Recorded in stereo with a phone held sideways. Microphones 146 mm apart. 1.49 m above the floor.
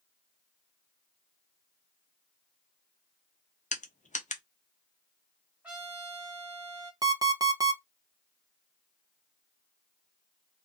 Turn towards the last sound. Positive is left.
turn(degrees=-25)  # may be behind; listen again after turning